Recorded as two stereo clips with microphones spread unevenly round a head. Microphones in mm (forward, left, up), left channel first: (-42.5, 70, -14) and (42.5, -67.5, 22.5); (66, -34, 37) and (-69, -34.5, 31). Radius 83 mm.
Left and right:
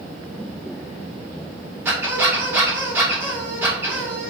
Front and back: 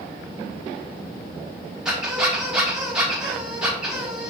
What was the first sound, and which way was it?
A squeak, 95° right.